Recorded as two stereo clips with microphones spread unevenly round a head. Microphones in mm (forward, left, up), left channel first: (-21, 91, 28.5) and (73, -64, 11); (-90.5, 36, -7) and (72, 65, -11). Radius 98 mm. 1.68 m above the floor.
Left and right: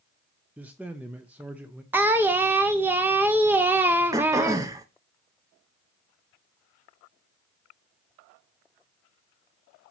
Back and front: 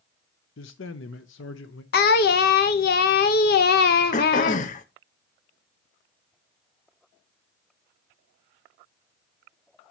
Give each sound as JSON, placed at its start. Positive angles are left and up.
{"t": 0.6, "sound": "a man speaking", "azimuth_deg": -140, "distance_m": 0.5}
{"t": 1.9, "sound": "singing", "azimuth_deg": -140, "distance_m": 0.6}
{"t": 4.1, "sound": "throat clearing", "azimuth_deg": -135, "distance_m": 0.6}